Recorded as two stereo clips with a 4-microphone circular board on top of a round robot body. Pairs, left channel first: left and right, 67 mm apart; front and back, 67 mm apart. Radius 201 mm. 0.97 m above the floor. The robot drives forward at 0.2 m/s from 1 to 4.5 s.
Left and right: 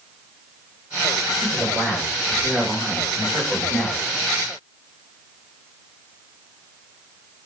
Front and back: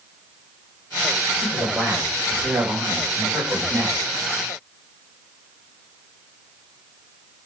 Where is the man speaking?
145° right, 2.5 m; by 4.0 s 155° right, 3 m.